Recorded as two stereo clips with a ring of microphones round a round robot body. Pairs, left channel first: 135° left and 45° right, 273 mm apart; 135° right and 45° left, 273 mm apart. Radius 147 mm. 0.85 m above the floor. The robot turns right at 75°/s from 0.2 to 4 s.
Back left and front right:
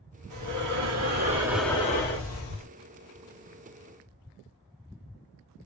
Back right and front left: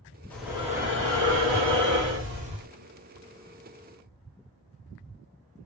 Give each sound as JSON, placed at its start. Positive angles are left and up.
{"t": 0.3, "sound": "breathing", "azimuth_deg": -55, "distance_m": 1.0}